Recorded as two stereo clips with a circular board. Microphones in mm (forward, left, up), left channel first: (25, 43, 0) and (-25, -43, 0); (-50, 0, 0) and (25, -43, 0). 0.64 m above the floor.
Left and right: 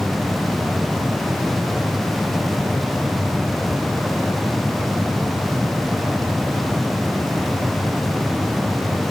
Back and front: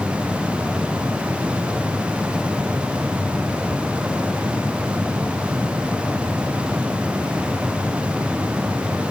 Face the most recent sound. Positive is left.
No sound to turn to.